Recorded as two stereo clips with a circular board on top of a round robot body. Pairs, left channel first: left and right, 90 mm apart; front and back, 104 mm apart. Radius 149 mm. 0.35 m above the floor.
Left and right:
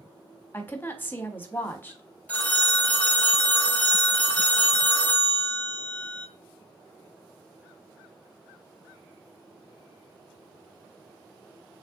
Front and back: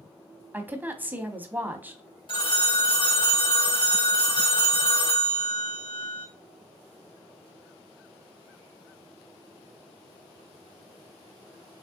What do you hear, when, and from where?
0.5 s a woman speaking: 125° left, 1.1 m
2.3 s a phone ringing: 20° left, 1.3 m